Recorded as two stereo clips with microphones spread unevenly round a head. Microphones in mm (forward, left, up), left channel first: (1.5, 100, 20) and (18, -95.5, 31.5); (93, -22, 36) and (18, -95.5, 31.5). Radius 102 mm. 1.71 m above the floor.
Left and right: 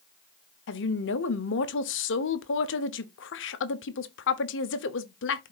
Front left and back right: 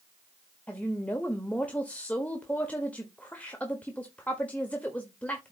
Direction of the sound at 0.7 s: 125° left.